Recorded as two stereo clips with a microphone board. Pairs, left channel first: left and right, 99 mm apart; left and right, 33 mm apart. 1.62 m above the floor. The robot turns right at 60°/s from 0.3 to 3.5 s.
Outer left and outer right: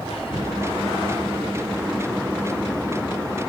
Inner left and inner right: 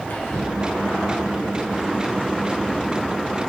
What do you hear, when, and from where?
0.1 s whispering: 80° left, 0.5 m; by 0.5 s 70° left (ahead or behind), 0.5 m